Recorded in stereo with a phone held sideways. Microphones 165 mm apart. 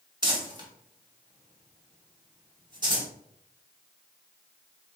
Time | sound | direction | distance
0.2 | crumpling | 30° right (ahead or behind) | 1.5 m